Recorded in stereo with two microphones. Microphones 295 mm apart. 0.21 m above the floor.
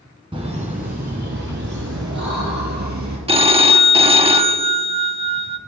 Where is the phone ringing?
20° right (ahead or behind), 0.6 m.